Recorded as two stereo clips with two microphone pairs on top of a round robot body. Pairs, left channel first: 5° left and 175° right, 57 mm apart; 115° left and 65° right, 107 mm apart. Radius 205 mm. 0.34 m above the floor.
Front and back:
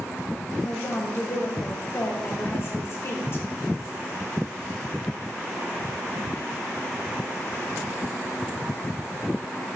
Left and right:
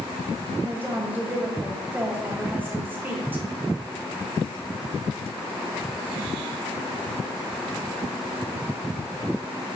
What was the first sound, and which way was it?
A woman speaking, 10° right.